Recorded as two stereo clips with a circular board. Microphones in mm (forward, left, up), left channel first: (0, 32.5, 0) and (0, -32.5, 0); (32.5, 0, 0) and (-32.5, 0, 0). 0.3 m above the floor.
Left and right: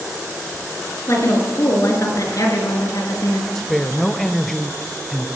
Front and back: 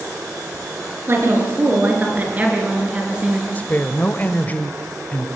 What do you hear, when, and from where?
1.1 s a woman speaking: 130° left, 5.5 m; by 3.5 s 100° left, 5 m
3.5 s a woman speaking: 5° left, 1.0 m